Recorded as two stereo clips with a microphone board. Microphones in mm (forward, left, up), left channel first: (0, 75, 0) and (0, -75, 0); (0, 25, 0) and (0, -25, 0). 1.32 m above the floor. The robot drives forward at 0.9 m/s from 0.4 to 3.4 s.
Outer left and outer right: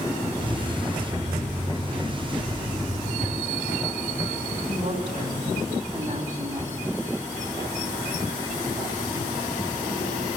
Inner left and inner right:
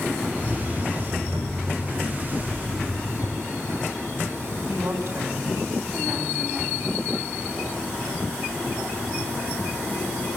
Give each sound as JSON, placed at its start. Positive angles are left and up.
{"t": 4.7, "sound": "a woman speaking", "side_deg": -55, "distance_m": 9.5}